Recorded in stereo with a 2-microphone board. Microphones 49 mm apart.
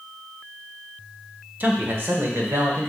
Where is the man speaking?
40° right (ahead or behind), 1.1 m; by 2.9 s 65° right (ahead or behind), 1.8 m.